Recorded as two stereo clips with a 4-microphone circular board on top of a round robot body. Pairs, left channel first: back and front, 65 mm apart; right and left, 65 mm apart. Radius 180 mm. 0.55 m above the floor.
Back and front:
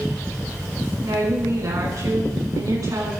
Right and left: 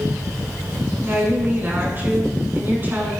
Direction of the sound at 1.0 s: 30° left.